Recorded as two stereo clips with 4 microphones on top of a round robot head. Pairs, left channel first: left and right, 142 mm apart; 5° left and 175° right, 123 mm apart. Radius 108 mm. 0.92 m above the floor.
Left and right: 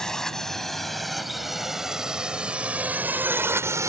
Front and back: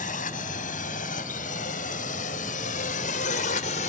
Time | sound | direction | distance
0.0 | a drone | 5° left | ?